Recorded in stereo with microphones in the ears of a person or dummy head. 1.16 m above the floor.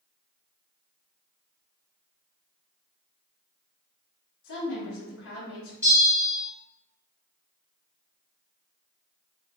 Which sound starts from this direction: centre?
A bell, at 5.8 s.